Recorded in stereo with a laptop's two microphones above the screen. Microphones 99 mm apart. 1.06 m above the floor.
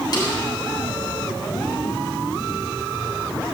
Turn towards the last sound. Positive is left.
turn(degrees=45)  # may be behind; listen again after turning